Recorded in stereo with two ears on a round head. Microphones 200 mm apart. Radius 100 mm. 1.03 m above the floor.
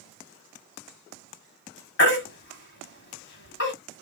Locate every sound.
2.0 s a baby crying: 50° left (ahead or behind), 1.4 m